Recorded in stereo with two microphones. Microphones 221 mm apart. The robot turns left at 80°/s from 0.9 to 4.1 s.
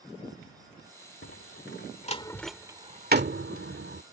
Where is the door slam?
65° left (ahead or behind); by 4.0 s 55° right (ahead or behind).